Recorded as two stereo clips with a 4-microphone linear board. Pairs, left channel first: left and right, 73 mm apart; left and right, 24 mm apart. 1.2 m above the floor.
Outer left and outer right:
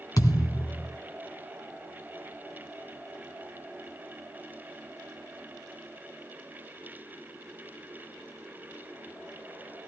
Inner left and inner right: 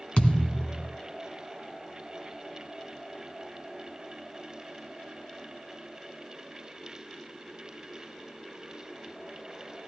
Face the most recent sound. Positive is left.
turn(degrees=60)  # may be behind; listen again after turning